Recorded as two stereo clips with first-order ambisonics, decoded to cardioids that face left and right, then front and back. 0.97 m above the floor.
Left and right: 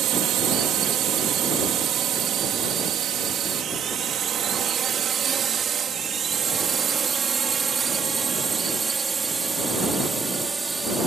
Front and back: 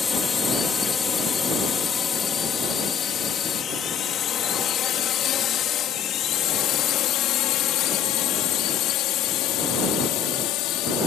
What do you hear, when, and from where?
0.0 s a drone: 65° right; by 11.1 s 15° right